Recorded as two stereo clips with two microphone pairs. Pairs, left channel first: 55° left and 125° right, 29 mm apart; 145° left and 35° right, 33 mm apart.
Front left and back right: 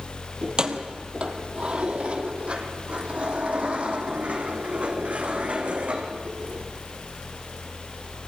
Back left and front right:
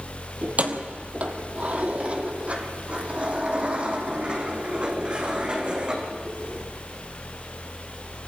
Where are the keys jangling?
70° right, 2.0 m; by 6.7 s 95° right, 5 m.